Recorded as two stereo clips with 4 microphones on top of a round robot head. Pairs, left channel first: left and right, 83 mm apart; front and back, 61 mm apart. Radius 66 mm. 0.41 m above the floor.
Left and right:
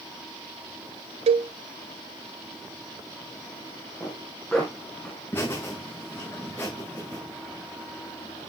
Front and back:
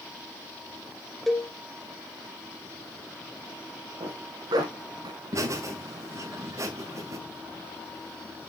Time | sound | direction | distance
1.3 | a cowbell | 90° right | 0.6 m
4.0 | a zipper | 175° left | 3.5 m
5.3 | laughter | 155° left | 2.5 m